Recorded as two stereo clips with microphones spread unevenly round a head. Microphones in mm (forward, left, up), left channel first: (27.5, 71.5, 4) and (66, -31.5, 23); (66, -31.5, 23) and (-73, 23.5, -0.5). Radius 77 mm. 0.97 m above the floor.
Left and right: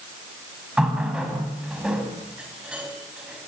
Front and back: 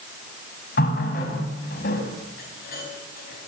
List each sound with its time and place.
0.8 s a running tap: 15° left, 5.5 m